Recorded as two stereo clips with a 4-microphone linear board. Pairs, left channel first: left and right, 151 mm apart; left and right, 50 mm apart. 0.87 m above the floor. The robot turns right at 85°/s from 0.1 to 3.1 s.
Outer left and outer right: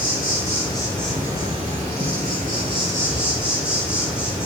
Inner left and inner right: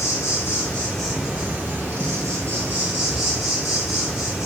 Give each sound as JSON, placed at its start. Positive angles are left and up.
{"t": 0.0, "sound": "an insect", "azimuth_deg": 95, "distance_m": 1.8}